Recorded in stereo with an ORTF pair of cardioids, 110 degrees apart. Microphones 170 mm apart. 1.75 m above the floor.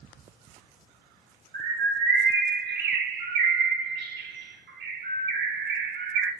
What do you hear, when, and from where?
1.5 s a bird: 70° right, 0.8 m